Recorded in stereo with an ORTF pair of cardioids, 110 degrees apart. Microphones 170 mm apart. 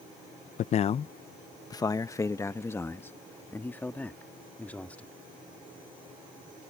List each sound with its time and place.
0.6 s a man speaking: 50° left; by 5.1 s 10° left